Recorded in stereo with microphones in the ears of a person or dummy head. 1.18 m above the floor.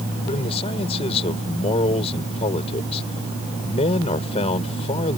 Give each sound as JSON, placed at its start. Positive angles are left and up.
{"t": 0.2, "sound": "a man speaking", "side_deg": 35}